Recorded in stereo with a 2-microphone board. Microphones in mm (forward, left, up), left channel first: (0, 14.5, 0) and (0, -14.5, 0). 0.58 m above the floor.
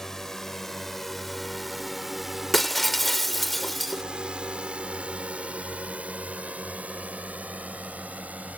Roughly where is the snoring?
No snoring in this recording.